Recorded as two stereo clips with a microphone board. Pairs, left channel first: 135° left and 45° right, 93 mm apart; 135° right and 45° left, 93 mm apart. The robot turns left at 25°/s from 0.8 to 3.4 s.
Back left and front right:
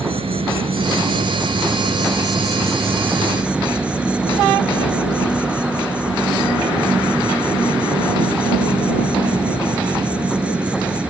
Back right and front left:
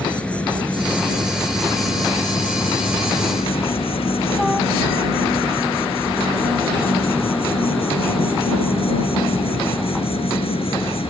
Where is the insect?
60° right; by 11.1 s 125° right.